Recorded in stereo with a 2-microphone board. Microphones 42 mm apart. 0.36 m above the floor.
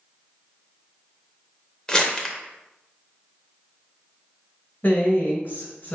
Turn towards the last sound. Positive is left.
turn(degrees=45)  # may be behind; listen again after turning